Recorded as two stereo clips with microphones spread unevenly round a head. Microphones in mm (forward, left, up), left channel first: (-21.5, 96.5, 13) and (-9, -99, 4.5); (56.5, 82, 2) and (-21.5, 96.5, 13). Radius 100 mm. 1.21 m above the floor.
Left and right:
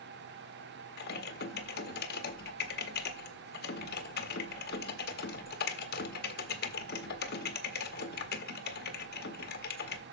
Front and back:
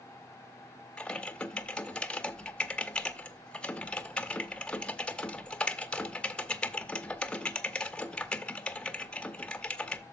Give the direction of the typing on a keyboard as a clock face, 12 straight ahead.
10 o'clock.